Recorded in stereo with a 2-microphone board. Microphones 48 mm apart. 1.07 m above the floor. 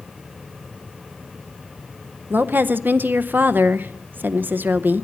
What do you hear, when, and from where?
2.3 s a woman speaking: 40° right (ahead or behind), 0.6 m